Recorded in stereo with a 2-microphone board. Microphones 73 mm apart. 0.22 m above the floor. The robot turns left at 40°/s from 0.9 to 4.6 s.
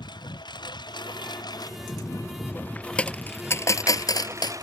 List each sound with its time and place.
0.0 s a lawn mower: 90° left; by 4.6 s 50° right (ahead or behind)
3.0 s a dropped coin: 15° left (ahead or behind); by 4.6 s 75° left (ahead or behind)